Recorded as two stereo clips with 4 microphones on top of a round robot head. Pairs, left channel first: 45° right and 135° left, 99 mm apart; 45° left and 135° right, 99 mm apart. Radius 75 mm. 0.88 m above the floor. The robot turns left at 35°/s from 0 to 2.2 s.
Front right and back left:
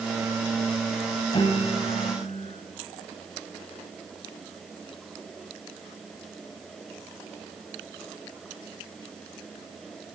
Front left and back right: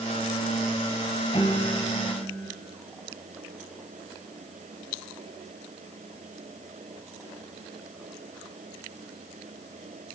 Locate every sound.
1.3 s a piano: straight ahead, 1.9 m; by 2.5 s 30° right, 1.9 m